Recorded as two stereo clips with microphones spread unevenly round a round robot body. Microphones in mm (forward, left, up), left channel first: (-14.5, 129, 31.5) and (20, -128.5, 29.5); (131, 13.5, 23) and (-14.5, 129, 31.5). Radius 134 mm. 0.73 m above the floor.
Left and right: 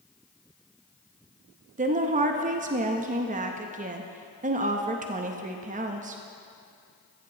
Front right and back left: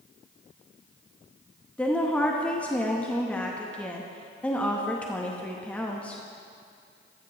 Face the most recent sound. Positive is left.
turn(degrees=-115)